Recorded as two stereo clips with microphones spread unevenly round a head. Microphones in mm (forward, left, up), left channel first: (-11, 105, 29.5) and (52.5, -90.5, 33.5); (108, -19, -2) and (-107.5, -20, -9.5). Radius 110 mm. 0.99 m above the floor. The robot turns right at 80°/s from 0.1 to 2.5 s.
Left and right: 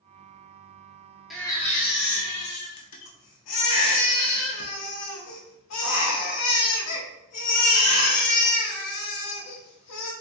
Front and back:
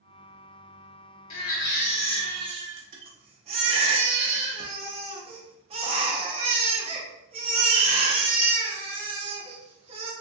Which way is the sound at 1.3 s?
20° left.